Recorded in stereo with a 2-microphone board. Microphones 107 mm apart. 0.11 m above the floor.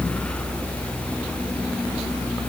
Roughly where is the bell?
I don't hear a bell.